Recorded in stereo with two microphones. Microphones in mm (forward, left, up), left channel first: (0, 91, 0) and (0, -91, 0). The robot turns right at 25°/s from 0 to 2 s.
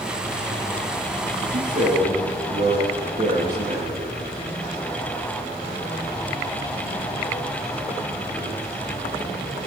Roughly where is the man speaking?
Right.